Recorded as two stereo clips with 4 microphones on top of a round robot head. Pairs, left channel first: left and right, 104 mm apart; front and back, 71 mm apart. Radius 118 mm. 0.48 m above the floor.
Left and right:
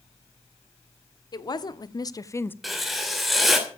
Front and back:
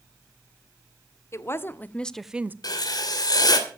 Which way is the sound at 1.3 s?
45° left.